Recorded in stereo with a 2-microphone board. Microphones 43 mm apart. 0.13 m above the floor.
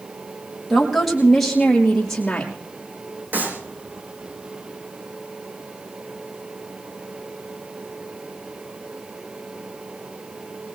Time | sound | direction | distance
0.7 | a woman speaking | centre (ahead or behind) | 4.5 m
3.3 | a clap | 45° right (ahead or behind) | 5 m